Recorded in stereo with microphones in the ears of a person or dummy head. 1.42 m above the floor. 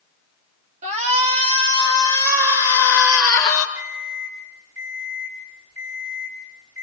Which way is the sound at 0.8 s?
40° right (ahead or behind).